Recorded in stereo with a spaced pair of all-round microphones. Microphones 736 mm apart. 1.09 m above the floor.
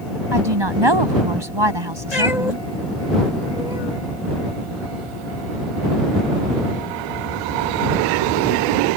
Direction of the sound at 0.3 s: 35° right (ahead or behind).